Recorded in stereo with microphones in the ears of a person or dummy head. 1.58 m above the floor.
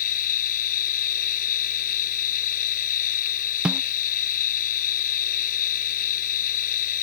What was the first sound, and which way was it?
A machine running, 45° left (ahead or behind).